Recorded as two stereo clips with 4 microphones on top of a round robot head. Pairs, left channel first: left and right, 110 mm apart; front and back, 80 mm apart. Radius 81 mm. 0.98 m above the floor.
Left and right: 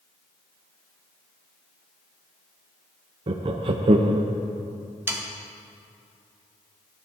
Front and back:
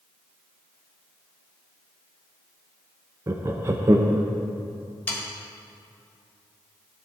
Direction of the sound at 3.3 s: 125° right.